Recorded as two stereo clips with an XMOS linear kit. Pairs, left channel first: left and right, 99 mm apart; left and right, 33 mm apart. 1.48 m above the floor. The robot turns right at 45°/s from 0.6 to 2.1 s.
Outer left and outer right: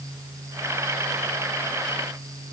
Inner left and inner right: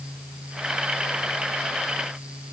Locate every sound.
Only background noise.